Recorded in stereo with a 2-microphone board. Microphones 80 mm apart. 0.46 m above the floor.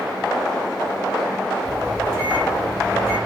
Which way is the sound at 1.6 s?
30° right (ahead or behind).